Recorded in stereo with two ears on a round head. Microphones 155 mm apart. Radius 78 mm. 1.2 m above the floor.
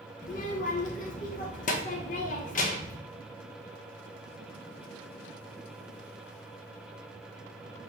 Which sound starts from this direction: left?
A child speaking, at 0.2 s.